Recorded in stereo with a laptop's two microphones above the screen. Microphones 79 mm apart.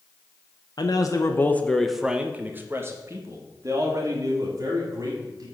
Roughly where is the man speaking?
Left.